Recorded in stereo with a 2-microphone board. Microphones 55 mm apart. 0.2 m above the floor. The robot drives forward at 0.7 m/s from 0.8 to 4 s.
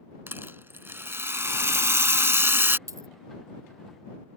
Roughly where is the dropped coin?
Right.